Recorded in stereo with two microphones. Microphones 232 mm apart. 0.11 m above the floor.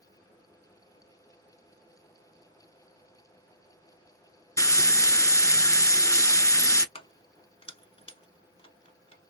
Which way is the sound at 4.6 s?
15° left (ahead or behind).